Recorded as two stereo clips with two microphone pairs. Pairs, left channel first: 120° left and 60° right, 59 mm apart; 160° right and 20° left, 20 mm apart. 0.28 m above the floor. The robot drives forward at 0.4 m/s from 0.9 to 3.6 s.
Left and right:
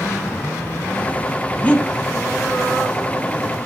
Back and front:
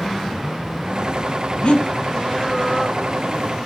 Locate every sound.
1.6 s breathing: 175° right, 0.8 m